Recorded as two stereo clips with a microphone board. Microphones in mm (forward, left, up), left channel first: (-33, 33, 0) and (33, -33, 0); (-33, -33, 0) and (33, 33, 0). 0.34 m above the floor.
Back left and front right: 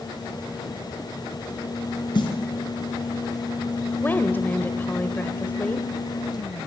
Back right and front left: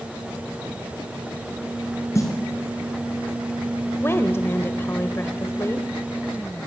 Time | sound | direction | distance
2.1 | a snare drum | 170° left | 4.5 m
4.0 | a woman speaking | 175° right | 1.3 m